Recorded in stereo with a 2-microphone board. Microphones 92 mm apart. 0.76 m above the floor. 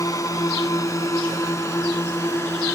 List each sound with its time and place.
0.0 s a drone: 35° left (ahead or behind); by 2.8 s 30° left (ahead or behind)